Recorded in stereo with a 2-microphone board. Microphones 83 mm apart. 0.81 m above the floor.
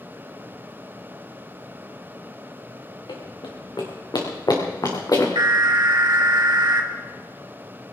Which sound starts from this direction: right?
An alarm, at 5.3 s.